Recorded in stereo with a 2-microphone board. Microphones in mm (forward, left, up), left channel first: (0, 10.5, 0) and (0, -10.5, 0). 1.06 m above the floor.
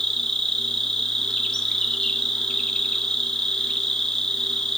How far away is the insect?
About 0.7 m.